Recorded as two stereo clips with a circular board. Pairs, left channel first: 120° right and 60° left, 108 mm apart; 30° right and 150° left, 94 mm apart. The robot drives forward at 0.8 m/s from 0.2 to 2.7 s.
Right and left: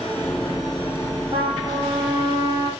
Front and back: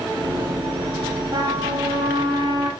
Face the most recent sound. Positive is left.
turn(degrees=120)